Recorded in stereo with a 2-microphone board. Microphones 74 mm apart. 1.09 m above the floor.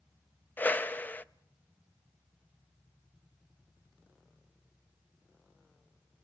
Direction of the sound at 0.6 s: 25° left (ahead or behind).